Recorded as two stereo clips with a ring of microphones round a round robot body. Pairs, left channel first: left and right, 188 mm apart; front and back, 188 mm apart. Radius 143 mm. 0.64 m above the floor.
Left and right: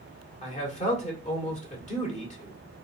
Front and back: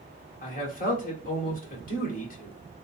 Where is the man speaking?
40° left, 1.8 m.